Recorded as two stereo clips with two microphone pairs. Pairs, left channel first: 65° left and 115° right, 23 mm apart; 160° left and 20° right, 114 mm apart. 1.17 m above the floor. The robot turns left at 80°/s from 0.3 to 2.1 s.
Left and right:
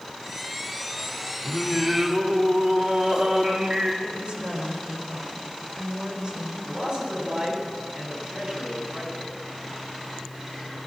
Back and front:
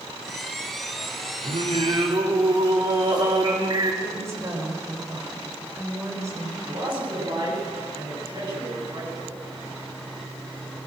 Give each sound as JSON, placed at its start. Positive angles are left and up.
{"t": 1.4, "sound": "singing", "azimuth_deg": -15, "distance_m": 2.5}
{"t": 4.0, "sound": "a woman speaking", "azimuth_deg": -80, "distance_m": 4.5}
{"t": 6.7, "sound": "a man speaking", "azimuth_deg": -65, "distance_m": 8.0}